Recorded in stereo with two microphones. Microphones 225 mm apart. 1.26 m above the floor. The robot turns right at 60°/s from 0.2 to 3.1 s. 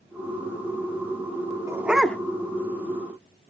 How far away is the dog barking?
About 1.0 m.